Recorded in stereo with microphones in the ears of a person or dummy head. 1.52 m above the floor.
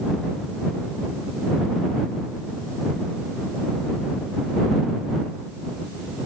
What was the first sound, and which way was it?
Only background noise.